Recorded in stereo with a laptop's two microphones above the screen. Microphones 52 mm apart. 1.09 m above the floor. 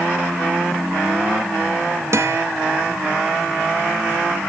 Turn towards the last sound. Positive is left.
turn(degrees=-55)  # may be behind; listen again after turning